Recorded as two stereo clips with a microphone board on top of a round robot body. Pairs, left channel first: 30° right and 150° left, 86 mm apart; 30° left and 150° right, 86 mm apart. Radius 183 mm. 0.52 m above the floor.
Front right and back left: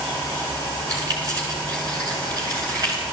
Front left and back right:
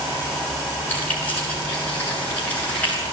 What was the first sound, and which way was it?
Keys jangling, 100° left.